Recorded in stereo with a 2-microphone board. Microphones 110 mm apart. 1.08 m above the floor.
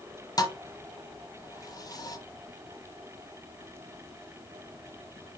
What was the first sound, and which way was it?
A thud, 35° left (ahead or behind).